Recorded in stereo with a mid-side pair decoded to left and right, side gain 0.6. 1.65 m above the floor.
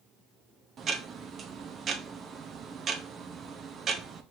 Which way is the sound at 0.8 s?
40° right.